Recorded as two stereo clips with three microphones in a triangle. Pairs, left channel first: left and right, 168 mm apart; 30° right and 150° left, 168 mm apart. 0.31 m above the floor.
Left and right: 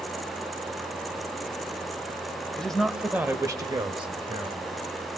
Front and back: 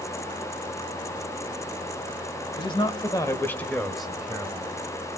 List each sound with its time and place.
2.6 s a man speaking: 10° left, 1.6 m; by 4.7 s 135° right, 2 m